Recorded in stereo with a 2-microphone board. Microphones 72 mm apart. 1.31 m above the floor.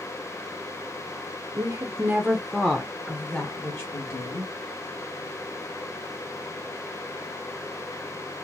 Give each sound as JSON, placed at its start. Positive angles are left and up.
{"t": 1.6, "sound": "a woman speaking", "side_deg": -55, "distance_m": 0.8}